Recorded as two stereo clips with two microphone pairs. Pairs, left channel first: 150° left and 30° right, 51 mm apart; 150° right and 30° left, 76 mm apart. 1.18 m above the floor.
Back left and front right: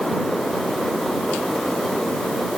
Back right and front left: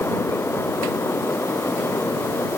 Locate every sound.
Only background noise.